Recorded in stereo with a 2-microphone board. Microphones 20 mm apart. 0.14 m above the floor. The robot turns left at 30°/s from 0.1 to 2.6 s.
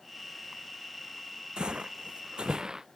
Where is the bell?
I don't hear a bell.